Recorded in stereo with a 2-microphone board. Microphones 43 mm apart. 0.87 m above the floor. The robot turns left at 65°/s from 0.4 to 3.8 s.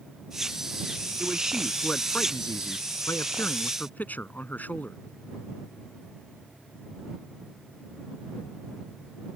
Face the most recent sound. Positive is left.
turn(degrees=40)